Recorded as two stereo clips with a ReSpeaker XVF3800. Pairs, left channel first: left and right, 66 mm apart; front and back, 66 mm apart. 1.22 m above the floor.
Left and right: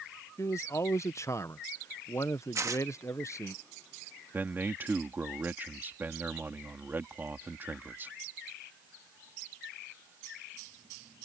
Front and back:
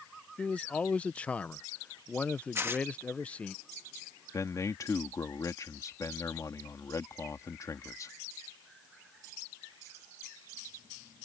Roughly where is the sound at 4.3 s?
Ahead right.